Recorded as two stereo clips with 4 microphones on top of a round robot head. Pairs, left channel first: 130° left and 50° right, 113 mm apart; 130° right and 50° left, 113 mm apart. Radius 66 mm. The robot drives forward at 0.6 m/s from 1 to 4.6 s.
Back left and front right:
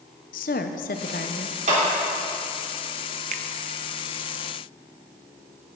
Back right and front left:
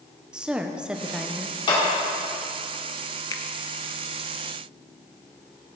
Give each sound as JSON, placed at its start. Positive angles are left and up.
{"t": 0.3, "sound": "a woman speaking", "azimuth_deg": 130, "distance_m": 0.7}
{"t": 1.7, "sound": "a clap", "azimuth_deg": -80, "distance_m": 3.5}
{"t": 3.3, "sound": "a finger snap", "azimuth_deg": -70, "distance_m": 0.5}